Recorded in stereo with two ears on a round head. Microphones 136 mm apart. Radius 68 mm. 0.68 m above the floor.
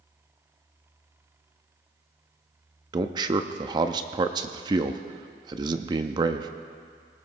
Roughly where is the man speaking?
Right.